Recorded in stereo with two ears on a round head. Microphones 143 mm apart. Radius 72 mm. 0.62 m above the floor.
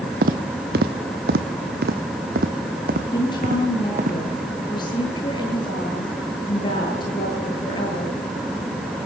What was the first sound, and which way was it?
Footsteps, 60° right (ahead or behind).